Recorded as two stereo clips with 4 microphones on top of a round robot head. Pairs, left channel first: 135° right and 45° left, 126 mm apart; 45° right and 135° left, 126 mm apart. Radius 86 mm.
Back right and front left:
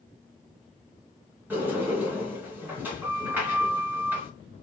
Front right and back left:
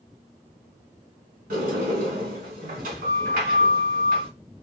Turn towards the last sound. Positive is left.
turn(degrees=120)